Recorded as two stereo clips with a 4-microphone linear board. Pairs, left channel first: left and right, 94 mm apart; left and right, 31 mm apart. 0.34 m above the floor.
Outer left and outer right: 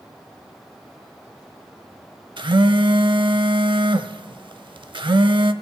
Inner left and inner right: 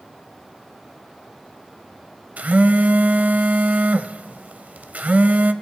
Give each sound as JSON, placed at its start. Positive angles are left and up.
{"t": 2.4, "sound": "a phone buzzing", "side_deg": -60, "distance_m": 0.5}